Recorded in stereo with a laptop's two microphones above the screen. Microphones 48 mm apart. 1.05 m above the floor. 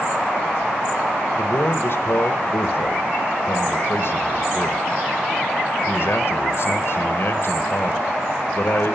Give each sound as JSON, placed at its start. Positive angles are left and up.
{"t": 1.4, "sound": "a man speaking", "side_deg": 55, "distance_m": 1.3}